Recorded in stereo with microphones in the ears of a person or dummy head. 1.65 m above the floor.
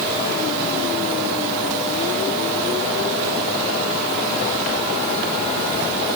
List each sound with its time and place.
Only background noise.